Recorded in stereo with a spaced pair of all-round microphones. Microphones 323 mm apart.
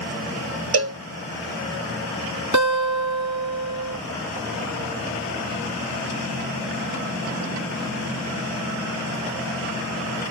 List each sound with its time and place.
0.7 s a cowbell: 50° right (ahead or behind), 0.5 m
2.5 s a guitar: 65° right (ahead or behind), 1.4 m